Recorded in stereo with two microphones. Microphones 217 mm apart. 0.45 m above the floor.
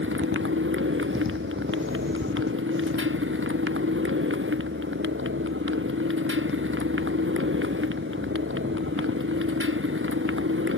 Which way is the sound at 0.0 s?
70° right (ahead or behind).